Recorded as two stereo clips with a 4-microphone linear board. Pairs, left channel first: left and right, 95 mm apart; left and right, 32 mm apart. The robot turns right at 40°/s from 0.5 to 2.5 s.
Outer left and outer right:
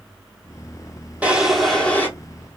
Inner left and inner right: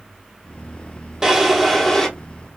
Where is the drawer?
15° right, 0.9 m; by 2.1 s 20° left, 0.9 m.